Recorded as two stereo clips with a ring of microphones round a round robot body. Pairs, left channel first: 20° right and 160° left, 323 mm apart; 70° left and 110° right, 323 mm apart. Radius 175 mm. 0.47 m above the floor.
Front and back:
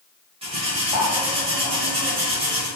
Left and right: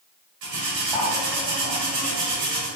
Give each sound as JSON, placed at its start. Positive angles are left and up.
{"t": 0.4, "sound": "cutlery clinking", "azimuth_deg": -130, "distance_m": 1.3}